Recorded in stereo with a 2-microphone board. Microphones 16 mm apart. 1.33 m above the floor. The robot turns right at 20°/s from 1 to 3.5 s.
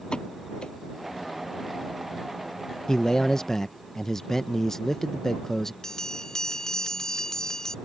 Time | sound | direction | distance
0.1 | a pop | 70° left (ahead or behind) | ?
2.9 | a man speaking | 40° left (ahead or behind) | ?
5.8 | a bell | 35° left (ahead or behind) | ?